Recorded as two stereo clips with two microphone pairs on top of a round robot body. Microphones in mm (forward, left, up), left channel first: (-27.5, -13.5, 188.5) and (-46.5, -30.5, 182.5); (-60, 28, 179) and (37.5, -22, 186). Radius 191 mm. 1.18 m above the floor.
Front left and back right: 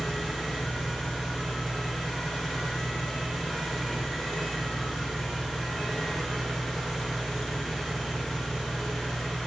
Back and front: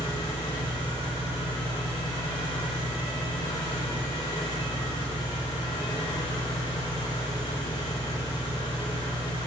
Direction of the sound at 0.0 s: 100° left.